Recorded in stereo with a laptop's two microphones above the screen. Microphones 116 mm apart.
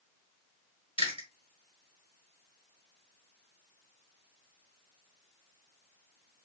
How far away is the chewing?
About 1.2 m.